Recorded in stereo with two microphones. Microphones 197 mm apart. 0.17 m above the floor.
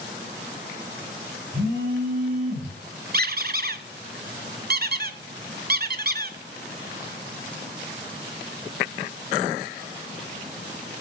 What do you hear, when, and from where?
1.5 s a phone buzzing: 50° right (ahead or behind), 7 m
3.1 s a squeak: 50° right (ahead or behind), 0.6 m